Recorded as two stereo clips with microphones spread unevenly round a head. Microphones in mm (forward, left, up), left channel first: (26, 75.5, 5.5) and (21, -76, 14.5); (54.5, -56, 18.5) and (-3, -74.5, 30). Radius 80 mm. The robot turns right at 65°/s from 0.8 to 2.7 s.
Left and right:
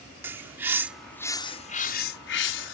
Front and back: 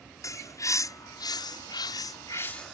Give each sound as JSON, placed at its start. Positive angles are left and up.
{"t": 0.2, "sound": "a bird", "azimuth_deg": -15}